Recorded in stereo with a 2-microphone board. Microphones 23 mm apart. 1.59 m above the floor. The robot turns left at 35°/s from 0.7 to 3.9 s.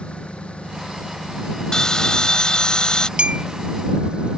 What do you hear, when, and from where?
0.0 s an engine running: 65° left; by 4.4 s 50° right
1.7 s a bell: 125° left; by 3.1 s 75° left
3.2 s a clink: 55° right (ahead or behind); by 3.5 s 65° right (ahead or behind)